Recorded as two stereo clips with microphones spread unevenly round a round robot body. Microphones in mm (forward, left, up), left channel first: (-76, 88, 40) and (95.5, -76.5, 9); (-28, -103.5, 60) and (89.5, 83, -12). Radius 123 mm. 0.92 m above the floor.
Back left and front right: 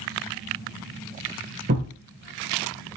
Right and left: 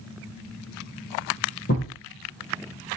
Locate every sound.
1.7 s a thud: 95° right, 2.5 m